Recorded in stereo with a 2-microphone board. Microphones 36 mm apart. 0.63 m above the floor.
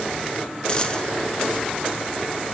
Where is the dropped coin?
25° left (ahead or behind), 0.8 m.